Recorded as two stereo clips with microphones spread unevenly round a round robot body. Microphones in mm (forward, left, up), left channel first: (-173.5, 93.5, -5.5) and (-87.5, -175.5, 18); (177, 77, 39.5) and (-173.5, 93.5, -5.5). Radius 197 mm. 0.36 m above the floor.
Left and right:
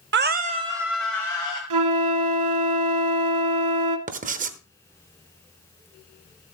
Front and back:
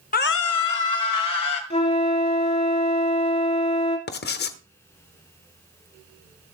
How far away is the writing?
About 0.9 m.